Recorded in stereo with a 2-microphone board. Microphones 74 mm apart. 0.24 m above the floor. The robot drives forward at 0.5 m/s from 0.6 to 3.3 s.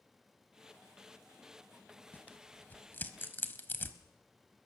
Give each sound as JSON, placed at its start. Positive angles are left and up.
{"t": 2.1, "sound": "tearing paper", "side_deg": 25, "distance_m": 1.7}